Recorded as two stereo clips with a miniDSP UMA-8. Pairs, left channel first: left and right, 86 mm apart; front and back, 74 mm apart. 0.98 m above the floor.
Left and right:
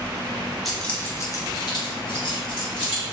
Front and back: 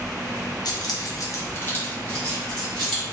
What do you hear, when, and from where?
0.7 s keys jangling: straight ahead, 0.5 m; by 3.0 s 85° left, 1.3 m